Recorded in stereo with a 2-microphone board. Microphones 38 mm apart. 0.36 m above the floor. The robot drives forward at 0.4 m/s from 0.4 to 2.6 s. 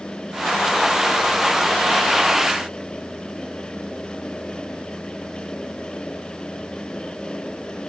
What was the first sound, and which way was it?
Only background noise.